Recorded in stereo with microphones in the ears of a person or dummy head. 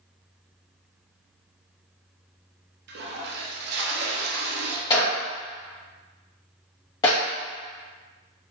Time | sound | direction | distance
2.9 | a toilet flushing | 55° right (ahead or behind) | 0.5 m
4.9 | a clap | 25° left (ahead or behind) | 1.4 m